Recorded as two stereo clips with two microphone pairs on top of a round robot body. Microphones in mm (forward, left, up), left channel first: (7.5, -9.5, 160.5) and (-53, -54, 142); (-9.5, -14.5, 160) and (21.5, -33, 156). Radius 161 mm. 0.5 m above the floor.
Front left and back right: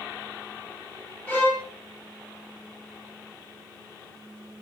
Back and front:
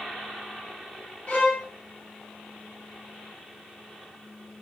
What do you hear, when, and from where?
1.3 s a violin: 115° left, 1.4 m